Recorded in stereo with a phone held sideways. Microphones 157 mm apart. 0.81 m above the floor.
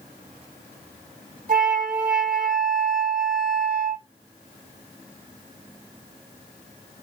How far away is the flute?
About 1.9 m.